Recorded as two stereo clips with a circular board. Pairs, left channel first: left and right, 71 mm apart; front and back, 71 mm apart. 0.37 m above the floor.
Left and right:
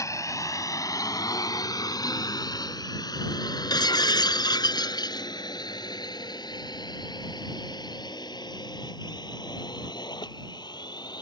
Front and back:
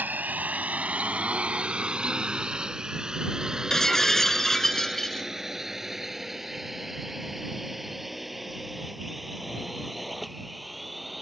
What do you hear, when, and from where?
0.0 s a drone: 120° left; by 11.2 s 90° left
3.7 s breaking glass: 85° left